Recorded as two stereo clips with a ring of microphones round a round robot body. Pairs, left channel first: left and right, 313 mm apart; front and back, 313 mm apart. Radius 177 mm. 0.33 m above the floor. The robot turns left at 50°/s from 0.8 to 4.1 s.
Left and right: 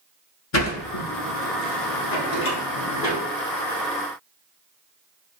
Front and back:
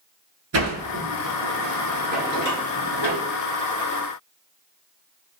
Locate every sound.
0.5 s a sliding door: 130° left, 1.1 m; by 3.2 s 10° left, 1.1 m